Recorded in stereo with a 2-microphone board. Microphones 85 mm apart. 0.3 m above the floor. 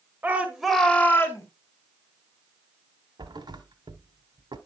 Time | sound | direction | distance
0.2 | a shout | 20° right (ahead or behind) | 1.6 m
3.2 | a thud | 65° right (ahead or behind) | 1.0 m